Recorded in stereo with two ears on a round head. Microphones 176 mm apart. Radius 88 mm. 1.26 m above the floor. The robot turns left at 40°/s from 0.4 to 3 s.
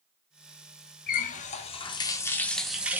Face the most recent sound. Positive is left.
turn(degrees=-10)